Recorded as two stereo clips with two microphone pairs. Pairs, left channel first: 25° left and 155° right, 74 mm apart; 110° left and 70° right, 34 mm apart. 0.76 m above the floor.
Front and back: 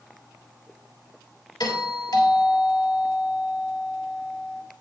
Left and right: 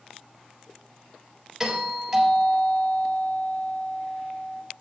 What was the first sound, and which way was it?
A doorbell, 10° left.